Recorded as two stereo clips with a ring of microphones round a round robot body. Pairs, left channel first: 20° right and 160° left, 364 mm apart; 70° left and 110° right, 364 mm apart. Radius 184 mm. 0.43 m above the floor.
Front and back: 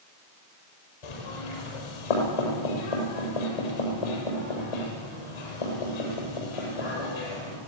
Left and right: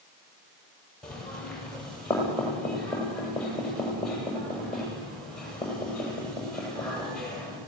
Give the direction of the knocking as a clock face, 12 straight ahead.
1 o'clock.